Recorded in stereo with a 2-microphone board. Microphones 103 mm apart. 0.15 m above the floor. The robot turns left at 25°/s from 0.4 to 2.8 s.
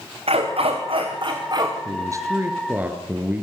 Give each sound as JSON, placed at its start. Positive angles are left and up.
{"t": 0.3, "sound": "a dog barking", "azimuth_deg": -105, "distance_m": 5.5}
{"t": 1.9, "sound": "a man speaking", "side_deg": -35, "distance_m": 3.0}